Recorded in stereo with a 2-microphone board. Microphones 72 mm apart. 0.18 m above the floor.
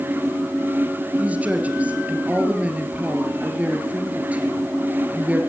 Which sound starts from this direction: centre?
A woman speaking, at 1.2 s.